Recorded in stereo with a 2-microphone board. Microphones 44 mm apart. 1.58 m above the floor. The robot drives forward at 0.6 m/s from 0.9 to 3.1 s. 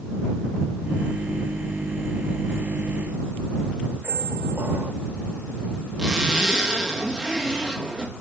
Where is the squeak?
45° right (ahead or behind), 2 m.